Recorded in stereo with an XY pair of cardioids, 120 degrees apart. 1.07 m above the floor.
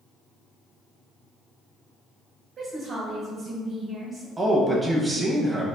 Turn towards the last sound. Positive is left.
turn(degrees=-25)